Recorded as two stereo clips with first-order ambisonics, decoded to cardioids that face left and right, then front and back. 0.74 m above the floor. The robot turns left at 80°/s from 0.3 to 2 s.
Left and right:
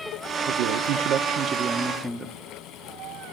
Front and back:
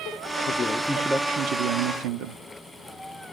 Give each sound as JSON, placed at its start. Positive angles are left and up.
{"t": 0.5, "sound": "a man speaking", "azimuth_deg": -55, "distance_m": 0.8}